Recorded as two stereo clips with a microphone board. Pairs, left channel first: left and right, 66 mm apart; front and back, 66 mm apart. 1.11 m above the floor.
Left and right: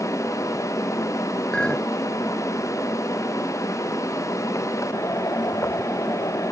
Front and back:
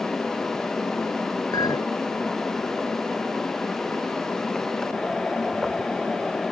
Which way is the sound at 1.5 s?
15° left.